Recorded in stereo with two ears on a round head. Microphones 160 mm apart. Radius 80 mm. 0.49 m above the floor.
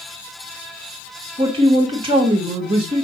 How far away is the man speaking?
About 1.2 m.